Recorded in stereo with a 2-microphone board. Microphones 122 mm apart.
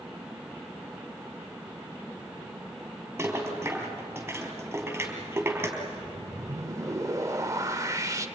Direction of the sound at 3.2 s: 15° right (ahead or behind).